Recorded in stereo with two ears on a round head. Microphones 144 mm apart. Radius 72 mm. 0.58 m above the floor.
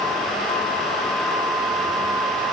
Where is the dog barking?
No dog barking in this recording.